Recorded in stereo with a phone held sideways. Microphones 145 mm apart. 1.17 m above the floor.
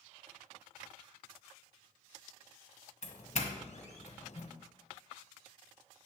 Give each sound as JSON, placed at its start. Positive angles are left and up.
{"t": 3.0, "sound": "a doorbell", "side_deg": 50, "distance_m": 1.6}